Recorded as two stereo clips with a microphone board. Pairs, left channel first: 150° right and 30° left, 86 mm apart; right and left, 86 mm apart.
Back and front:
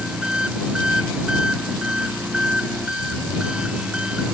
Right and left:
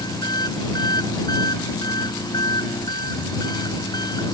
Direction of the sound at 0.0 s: 50° right.